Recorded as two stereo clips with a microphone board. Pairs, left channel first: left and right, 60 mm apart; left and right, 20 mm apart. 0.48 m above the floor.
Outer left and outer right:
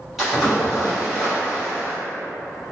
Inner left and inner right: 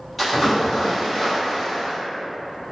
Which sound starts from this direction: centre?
A splash, at 0.2 s.